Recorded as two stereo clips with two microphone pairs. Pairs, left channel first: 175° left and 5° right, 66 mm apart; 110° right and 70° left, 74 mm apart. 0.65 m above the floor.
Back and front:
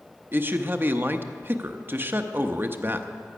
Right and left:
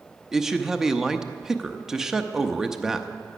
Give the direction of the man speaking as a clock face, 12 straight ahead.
12 o'clock.